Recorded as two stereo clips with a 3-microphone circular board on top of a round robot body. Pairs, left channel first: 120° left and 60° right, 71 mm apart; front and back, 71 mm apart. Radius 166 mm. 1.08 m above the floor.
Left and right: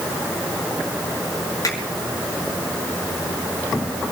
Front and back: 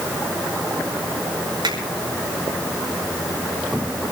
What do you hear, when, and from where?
1.6 s a finger snap: 165° left, 5.5 m